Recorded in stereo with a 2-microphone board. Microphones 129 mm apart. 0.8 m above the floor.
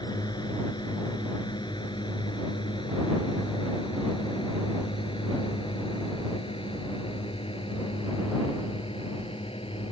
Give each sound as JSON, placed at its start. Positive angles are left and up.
{"t": 0.0, "sound": "a drone", "side_deg": 35}